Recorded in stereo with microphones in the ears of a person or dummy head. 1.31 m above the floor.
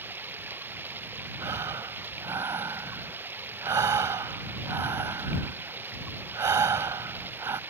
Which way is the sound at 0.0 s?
10° right (ahead or behind).